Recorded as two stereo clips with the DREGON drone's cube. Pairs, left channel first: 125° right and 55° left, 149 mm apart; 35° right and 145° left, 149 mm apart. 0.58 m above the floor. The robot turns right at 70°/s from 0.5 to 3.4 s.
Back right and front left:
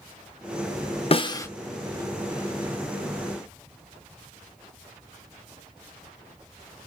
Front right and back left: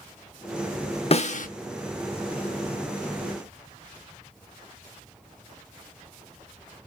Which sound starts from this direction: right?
A snare drum, at 1.1 s.